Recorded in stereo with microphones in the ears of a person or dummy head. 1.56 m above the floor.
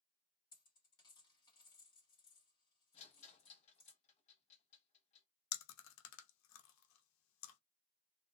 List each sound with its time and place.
0.5 s a dropped coin: 25° left (ahead or behind), 1.4 m
2.9 s a rattle: 40° left (ahead or behind), 0.8 m
5.5 s chewing: 80° left, 0.7 m